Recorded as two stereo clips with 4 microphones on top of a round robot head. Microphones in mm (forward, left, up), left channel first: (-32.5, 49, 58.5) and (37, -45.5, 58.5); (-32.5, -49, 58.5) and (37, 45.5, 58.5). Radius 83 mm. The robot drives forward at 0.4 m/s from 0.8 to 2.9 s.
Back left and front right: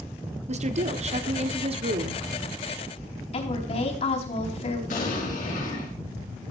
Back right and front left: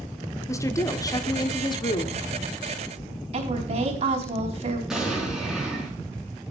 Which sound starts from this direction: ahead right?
A woman speaking, at 0.5 s.